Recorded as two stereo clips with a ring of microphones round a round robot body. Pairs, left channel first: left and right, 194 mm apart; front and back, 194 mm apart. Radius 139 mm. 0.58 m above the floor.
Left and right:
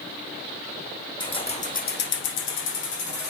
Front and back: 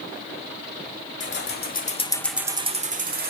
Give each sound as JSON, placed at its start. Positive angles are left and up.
{"t": 1.2, "sound": "keys jangling", "azimuth_deg": 20, "distance_m": 1.4}